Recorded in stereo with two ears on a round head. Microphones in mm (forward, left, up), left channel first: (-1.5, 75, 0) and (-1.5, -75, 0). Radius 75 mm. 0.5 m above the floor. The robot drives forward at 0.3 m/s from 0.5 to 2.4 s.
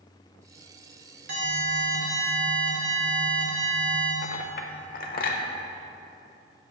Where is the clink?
55° left (ahead or behind), 1.1 m.